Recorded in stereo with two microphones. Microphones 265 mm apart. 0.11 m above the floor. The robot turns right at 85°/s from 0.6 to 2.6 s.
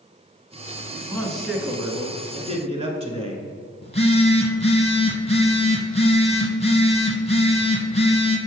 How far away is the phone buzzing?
About 1.1 m.